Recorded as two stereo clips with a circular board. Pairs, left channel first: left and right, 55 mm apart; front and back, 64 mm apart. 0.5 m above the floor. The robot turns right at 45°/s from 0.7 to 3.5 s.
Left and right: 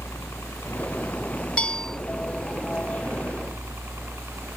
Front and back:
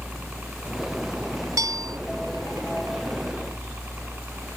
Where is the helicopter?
115° left; by 4.6 s 120° right.